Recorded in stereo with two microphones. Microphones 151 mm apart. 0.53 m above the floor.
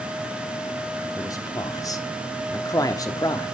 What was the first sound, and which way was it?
A man speaking, 25° left (ahead or behind).